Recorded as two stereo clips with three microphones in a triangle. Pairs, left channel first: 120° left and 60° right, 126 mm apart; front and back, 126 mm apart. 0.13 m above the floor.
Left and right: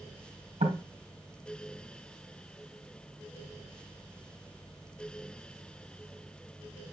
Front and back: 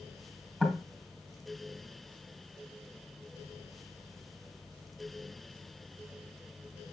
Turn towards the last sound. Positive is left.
turn(degrees=-85)